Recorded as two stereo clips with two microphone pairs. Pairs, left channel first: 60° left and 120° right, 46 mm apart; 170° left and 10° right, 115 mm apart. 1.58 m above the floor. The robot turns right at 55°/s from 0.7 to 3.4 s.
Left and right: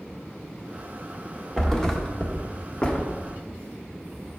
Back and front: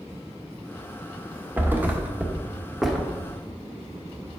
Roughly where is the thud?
Ahead.